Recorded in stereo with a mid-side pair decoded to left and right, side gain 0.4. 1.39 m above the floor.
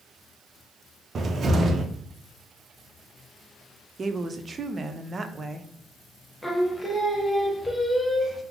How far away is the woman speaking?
About 0.5 m.